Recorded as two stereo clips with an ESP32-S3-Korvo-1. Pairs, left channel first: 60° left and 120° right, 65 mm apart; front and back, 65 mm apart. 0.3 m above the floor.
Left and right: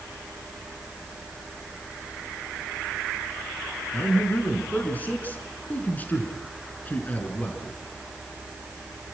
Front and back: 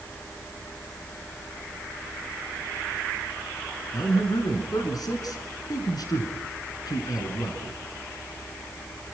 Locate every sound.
3.9 s a man speaking: 5° right, 4 m